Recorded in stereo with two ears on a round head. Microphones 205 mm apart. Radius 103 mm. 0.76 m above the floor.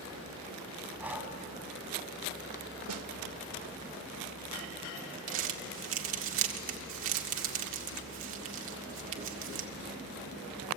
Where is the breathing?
5° right (ahead or behind), 2.5 m.